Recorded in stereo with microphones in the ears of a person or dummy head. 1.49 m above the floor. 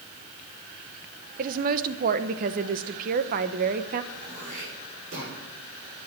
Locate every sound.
1.4 s a woman speaking: 50° right (ahead or behind), 1.0 m
4.1 s throat clearing: 45° right (ahead or behind), 6.5 m